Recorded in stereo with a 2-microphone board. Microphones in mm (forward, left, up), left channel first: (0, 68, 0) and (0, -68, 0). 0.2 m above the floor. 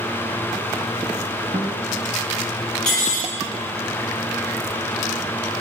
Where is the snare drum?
No snare drum in this recording.